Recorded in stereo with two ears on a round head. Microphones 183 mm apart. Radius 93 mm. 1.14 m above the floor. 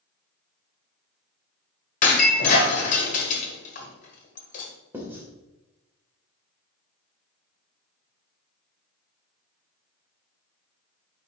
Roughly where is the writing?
Centre.